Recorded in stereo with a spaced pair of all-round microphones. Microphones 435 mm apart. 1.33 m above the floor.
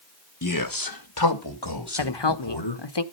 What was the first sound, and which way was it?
A man speaking, 40° left (ahead or behind).